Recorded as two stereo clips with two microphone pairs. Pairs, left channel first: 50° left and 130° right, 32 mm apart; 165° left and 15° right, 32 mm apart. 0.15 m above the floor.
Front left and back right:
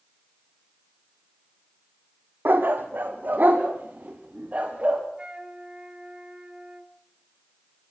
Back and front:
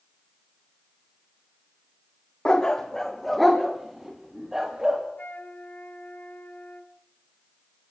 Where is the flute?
170° left, 1.9 m.